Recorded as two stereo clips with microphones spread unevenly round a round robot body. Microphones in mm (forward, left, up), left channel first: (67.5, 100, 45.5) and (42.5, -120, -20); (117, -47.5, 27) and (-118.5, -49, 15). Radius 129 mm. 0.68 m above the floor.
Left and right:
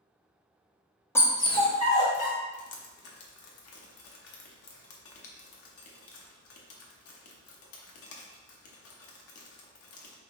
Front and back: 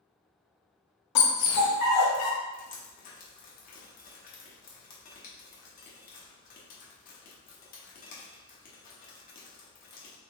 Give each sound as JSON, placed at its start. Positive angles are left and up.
{"t": 1.1, "sound": "a dog barking", "azimuth_deg": 10, "distance_m": 0.8}
{"t": 2.5, "sound": "dripping", "azimuth_deg": 55, "distance_m": 0.9}